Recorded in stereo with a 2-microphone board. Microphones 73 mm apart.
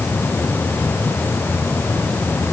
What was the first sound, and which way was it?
Only background noise.